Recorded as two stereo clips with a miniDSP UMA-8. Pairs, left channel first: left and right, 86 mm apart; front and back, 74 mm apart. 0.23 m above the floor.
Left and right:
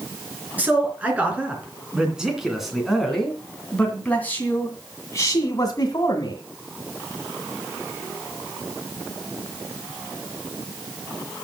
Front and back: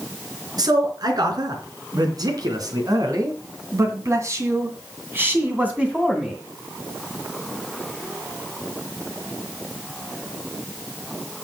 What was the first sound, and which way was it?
A man speaking, 160° right.